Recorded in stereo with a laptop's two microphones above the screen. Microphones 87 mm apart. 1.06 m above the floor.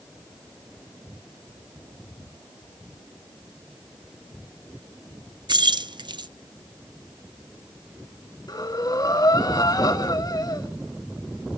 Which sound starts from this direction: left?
Breathing, at 8.5 s.